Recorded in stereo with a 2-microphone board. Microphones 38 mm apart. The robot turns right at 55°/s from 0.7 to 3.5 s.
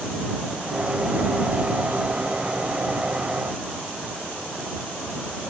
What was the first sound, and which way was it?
Only background noise.